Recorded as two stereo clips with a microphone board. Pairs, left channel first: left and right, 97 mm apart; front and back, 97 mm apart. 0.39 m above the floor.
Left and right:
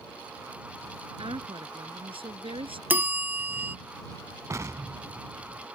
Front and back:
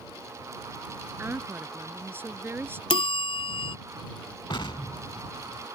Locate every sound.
1.2 s a woman speaking: 115° right
2.9 s a bell: 20° right
4.5 s an explosion: 30° right